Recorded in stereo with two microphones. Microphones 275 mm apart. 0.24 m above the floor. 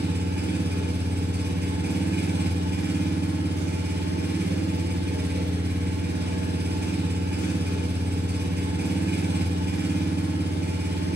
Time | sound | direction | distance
0.0 | an engine running | 40° right (ahead or behind) | 1.4 m